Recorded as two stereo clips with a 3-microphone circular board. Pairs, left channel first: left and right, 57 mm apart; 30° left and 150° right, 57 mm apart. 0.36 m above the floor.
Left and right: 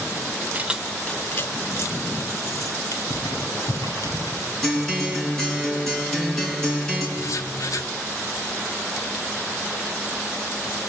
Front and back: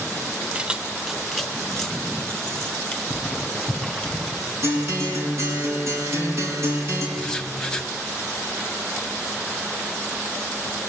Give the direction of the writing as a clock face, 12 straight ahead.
8 o'clock.